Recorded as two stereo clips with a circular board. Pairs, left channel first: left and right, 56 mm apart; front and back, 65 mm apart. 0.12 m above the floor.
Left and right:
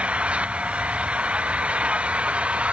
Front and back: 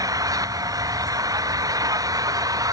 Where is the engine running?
160° right.